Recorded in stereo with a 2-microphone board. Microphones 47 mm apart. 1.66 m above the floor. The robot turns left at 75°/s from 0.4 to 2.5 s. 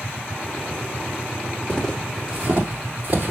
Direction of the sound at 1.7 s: 25° left (ahead or behind).